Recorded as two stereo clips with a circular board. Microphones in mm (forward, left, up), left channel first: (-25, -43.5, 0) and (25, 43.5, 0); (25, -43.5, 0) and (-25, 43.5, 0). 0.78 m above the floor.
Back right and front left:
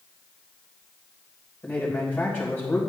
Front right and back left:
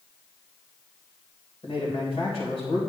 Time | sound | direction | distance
1.6 | a man speaking | 55° right | 3 m